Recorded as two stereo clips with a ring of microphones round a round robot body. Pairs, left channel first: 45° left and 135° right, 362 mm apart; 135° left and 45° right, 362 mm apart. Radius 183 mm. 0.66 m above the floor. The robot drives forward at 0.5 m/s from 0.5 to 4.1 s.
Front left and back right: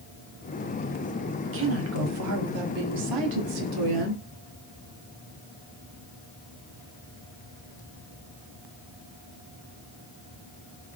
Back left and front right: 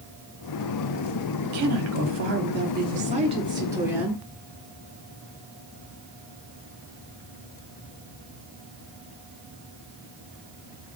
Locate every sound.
1.4 s a woman speaking: 80° right, 1.5 m; by 4.2 s 130° right, 1.8 m